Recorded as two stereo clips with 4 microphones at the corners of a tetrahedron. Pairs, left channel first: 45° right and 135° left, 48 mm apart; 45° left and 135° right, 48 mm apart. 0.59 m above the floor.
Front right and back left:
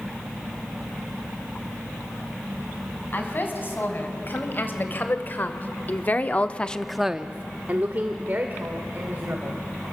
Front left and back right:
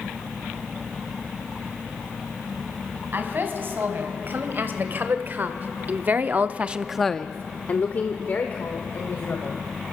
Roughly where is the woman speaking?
Right.